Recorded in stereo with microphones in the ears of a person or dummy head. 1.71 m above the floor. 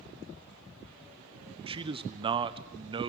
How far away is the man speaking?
About 1.0 m.